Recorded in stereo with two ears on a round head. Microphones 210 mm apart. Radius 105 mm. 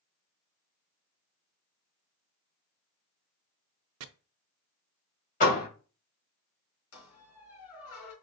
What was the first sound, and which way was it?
Chopping, 70° right (ahead or behind).